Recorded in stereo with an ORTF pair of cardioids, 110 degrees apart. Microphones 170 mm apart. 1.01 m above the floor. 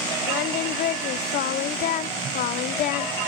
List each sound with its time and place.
0.3 s singing: 70° left, 1.1 m